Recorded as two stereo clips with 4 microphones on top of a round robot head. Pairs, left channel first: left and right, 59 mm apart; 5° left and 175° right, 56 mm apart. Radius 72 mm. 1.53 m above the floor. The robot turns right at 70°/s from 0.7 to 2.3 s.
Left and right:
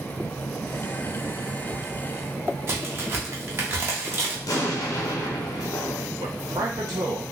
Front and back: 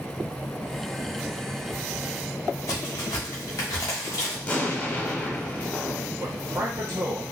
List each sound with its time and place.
2.7 s a crack: 40° right, 1.0 m
4.5 s an explosion: 70° left, 0.9 m
6.2 s a man speaking: 125° right, 1.0 m